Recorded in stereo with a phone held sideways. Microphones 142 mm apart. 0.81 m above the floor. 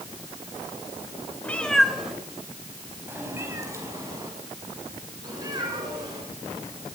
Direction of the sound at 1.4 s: 10° left (ahead or behind).